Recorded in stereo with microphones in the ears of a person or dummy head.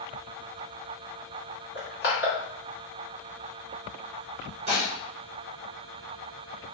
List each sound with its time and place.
1.8 s crushing: 50° left (ahead or behind), 1.6 m
4.7 s dishes clattering: 30° right (ahead or behind), 1.0 m